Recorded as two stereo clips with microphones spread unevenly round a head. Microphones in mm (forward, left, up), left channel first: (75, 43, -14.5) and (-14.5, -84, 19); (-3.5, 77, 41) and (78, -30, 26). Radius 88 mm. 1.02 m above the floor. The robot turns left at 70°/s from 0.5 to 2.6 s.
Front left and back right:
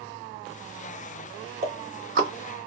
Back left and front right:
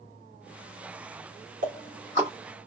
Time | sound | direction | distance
1.6 | ticking | 80° right | 2.5 m